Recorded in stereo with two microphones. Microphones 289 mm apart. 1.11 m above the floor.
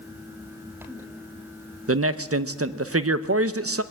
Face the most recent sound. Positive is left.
turn(degrees=-50)  # may be behind; listen again after turning